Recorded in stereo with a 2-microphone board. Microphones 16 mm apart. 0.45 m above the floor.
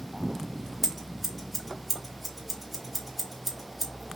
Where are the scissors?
5° left (ahead or behind), 1.7 m.